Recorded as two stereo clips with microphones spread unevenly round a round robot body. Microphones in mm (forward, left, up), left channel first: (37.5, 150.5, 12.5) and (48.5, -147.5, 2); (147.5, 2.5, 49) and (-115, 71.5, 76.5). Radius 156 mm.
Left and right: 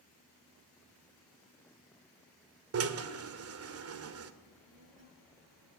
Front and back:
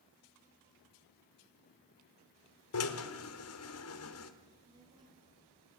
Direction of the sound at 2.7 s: 45° right.